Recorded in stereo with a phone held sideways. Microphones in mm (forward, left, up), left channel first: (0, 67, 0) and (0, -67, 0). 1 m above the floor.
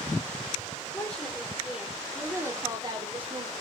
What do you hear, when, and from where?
0.9 s a woman speaking: 10° left (ahead or behind), 4 m; by 3.5 s 50° right (ahead or behind), 3 m